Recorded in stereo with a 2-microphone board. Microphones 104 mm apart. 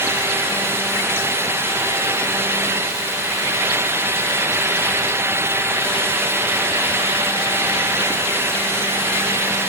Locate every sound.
Only background noise.